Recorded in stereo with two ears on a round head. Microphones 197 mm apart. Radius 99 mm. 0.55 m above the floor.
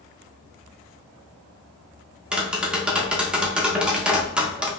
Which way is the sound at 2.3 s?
5° right (ahead or behind).